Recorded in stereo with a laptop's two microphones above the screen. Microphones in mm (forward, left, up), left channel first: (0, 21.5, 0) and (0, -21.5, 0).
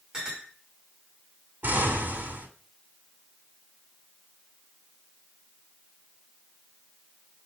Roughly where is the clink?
Right.